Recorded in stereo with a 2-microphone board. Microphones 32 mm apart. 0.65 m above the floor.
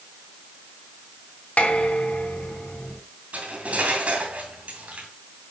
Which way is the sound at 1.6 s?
50° left (ahead or behind).